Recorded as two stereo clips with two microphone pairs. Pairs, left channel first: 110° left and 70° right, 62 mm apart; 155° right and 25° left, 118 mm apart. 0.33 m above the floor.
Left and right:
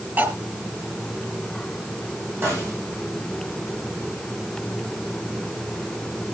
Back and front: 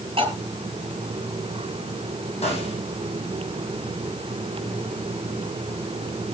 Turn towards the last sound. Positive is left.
turn(degrees=-125)